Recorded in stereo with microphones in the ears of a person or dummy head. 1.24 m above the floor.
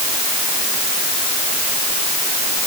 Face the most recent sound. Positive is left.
No sound to turn to.